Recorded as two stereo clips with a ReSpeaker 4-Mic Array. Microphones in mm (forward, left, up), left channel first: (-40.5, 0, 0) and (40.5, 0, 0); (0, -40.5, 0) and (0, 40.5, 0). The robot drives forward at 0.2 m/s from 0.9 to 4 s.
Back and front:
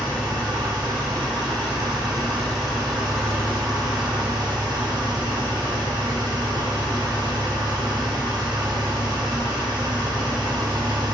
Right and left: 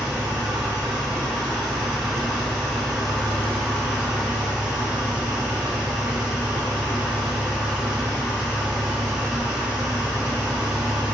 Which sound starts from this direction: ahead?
An engine running, at 0.0 s.